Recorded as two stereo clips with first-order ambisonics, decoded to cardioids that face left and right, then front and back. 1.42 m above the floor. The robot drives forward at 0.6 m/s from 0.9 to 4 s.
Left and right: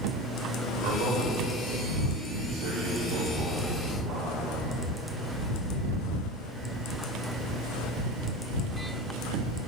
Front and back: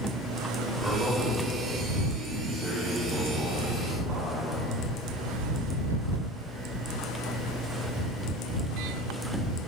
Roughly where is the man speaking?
Right.